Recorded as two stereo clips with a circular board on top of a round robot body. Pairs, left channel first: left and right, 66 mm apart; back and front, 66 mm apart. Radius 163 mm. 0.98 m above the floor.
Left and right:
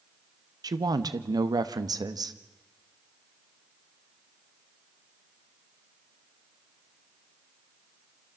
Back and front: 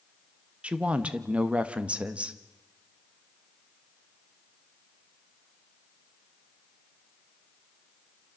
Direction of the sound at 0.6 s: 75° right.